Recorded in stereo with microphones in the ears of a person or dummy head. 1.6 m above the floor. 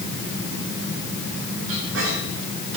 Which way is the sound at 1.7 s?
80° right.